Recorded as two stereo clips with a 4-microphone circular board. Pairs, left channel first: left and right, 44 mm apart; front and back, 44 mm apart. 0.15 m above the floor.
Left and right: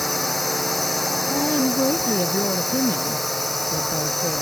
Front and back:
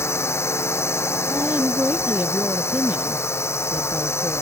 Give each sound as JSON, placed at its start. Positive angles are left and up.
{"t": 0.0, "sound": "a drone", "azimuth_deg": 0}
{"t": 1.3, "sound": "a woman speaking", "azimuth_deg": 130}